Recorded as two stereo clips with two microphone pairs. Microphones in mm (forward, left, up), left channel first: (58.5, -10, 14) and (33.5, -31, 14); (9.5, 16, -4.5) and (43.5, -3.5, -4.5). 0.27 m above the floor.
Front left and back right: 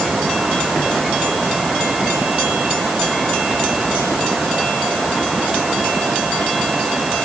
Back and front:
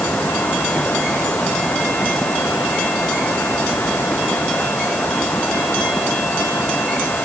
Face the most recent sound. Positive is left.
No sound to turn to.